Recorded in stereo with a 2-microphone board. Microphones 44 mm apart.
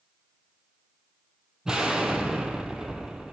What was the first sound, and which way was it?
An explosion, 15° right (ahead or behind).